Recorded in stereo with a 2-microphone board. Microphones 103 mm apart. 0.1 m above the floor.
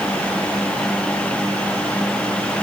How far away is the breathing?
No breathing in this recording.